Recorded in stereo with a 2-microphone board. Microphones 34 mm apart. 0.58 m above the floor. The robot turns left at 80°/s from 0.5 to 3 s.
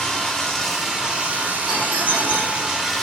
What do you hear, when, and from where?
0.0 s running water: 20° left, 1.0 m; by 3.0 s straight behind, 1.0 m
1.7 s a doorbell: 70° right, 2.5 m; by 2.7 s 150° right, 2.5 m